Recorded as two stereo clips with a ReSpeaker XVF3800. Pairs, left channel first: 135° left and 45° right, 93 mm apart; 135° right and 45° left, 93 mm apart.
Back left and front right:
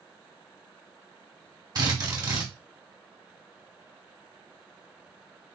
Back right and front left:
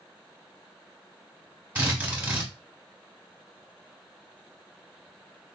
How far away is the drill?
About 1.2 m.